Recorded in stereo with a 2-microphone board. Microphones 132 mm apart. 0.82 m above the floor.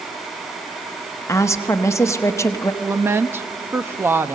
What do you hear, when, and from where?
1.3 s a woman speaking: 20° left (ahead or behind), 0.9 m
2.8 s a woman speaking: 15° right (ahead or behind), 0.7 m